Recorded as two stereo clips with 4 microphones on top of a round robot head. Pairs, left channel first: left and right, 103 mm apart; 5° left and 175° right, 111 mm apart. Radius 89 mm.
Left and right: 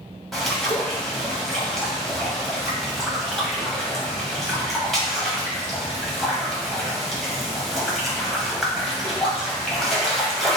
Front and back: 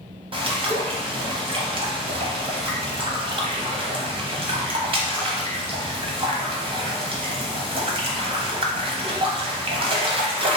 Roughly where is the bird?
Behind.